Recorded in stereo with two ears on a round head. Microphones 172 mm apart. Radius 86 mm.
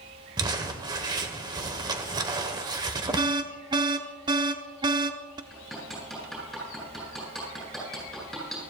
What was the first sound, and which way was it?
Crumpling, 20° right (ahead or behind).